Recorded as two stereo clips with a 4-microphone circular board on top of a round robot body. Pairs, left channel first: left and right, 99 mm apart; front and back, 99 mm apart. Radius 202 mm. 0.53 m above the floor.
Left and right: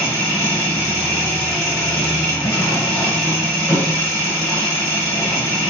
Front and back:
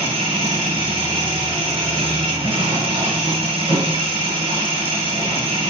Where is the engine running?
145° left, 9.5 m.